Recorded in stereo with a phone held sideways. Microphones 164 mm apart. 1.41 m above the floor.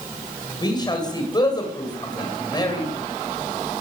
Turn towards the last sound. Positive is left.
turn(degrees=30)  # may be behind; listen again after turning